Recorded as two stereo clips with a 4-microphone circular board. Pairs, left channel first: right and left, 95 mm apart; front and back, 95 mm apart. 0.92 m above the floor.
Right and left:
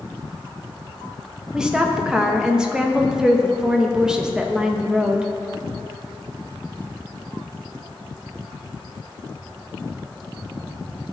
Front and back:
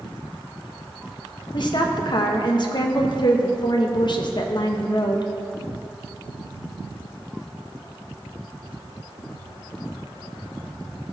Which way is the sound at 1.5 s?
10° left.